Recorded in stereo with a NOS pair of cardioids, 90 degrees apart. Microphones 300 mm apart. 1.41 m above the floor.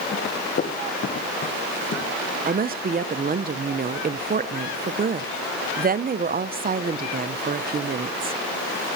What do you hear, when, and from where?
0.1 s running footsteps: 35° left, 8 m; by 2.0 s 45° left, 10.5 m
2.5 s a woman speaking: 30° right, 1.1 m